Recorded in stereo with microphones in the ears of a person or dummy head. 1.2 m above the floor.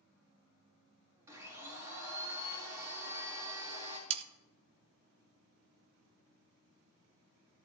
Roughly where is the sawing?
Right.